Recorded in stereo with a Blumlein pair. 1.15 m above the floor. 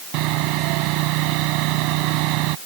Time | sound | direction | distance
0.1 | sawing | 40° right | ?